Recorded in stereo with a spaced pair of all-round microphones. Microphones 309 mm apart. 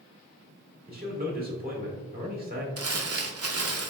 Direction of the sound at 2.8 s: 50° right (ahead or behind).